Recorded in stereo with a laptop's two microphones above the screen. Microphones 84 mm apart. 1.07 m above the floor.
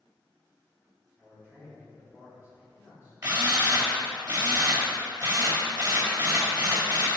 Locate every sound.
1.2 s a man speaking: 20° right (ahead or behind), 2.5 m
3.2 s a drill: 50° right (ahead or behind), 2 m